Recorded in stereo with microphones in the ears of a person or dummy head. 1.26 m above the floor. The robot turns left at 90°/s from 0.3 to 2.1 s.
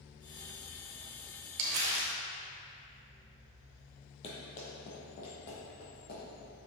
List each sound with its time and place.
1.6 s crumpling: 105° right, 0.9 m; by 2.1 s 150° right, 0.9 m
4.2 s running footsteps: 40° left (ahead or behind), 1.8 m; by 6.5 s 50° left (ahead or behind), 3.5 m